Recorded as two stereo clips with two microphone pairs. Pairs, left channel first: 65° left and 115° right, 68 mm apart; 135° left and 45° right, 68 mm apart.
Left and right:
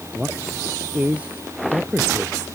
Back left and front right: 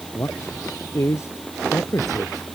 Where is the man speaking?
175° left.